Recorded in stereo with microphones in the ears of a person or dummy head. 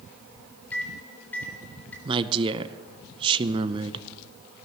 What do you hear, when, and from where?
0.7 s a microwave: 10° left (ahead or behind), 3.5 m
2.0 s a woman speaking: 25° right (ahead or behind), 0.7 m